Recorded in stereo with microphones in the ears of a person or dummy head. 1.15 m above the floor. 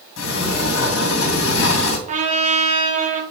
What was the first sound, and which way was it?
A sliding door, 65° left (ahead or behind).